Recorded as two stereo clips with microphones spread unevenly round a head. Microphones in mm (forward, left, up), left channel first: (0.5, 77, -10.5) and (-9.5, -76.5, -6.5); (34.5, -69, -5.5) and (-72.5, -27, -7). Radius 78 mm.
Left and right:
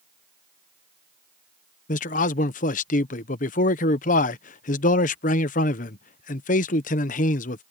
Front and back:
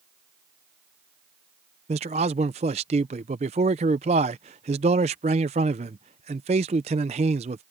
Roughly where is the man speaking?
Behind left.